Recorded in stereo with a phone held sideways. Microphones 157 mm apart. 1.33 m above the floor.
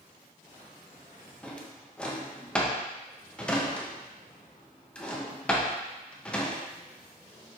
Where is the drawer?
5° left (ahead or behind), 0.6 m.